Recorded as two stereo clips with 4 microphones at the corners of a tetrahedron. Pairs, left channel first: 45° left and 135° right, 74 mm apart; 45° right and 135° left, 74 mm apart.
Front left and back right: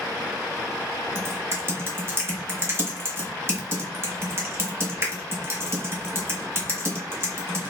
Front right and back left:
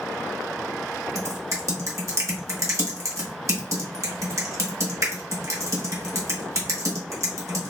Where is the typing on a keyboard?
175° left, 1.3 m.